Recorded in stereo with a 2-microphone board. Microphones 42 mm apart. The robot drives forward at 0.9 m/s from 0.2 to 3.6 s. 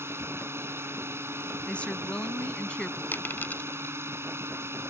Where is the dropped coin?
55° left (ahead or behind); by 4.0 s 45° left (ahead or behind).